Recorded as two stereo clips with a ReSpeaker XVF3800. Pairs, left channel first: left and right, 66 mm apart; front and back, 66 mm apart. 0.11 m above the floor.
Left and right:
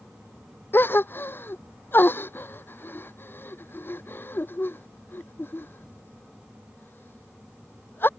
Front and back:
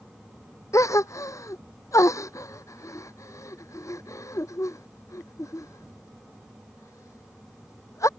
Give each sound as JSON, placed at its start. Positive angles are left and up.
{"t": 0.7, "sound": "a gasp", "azimuth_deg": 35}